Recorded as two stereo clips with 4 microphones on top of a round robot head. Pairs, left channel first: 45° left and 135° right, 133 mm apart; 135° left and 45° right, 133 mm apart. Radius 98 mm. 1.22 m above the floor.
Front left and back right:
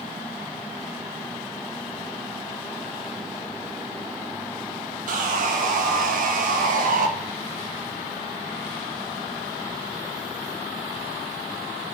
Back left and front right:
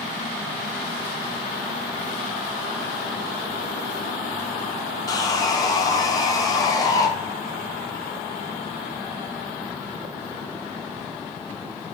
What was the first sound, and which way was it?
Sawing, 160° right.